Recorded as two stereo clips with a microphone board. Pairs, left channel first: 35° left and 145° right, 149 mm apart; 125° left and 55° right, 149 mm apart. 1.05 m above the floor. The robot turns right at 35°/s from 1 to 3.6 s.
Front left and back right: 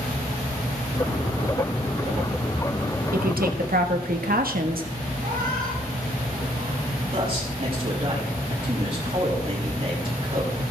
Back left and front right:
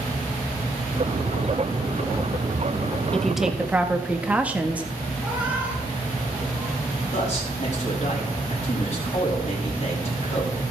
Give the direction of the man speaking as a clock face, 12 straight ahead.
7 o'clock.